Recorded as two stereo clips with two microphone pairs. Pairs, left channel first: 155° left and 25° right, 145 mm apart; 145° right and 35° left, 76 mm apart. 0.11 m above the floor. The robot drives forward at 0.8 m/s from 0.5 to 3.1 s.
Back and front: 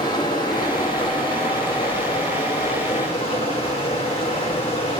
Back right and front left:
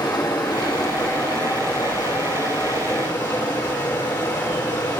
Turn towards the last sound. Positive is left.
turn(degrees=-160)